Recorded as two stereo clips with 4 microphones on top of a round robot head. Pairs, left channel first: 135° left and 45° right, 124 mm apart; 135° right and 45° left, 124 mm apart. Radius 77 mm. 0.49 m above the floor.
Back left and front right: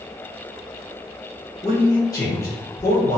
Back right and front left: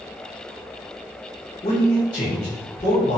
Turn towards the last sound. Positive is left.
turn(degrees=-170)